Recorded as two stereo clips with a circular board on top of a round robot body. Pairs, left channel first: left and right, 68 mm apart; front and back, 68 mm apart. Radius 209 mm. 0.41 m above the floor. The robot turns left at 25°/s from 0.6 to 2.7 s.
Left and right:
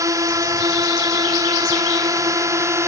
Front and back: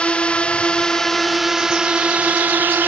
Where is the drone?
70° right; by 2.9 s 125° right.